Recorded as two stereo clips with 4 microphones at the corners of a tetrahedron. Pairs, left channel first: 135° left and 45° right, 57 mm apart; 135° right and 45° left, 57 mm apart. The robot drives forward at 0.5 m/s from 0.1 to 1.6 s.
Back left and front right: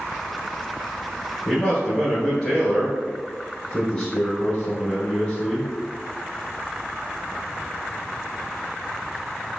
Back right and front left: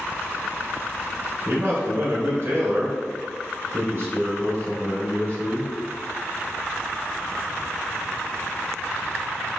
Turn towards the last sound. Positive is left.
turn(degrees=65)